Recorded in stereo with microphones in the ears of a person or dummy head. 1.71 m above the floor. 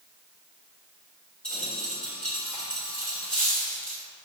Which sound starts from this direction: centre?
A dropped coin, at 1.4 s.